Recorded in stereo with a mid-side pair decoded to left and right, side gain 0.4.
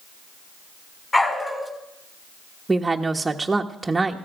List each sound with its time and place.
1.1 s a dog barking: 20° left, 4 m
2.7 s a woman speaking: 20° right, 1.3 m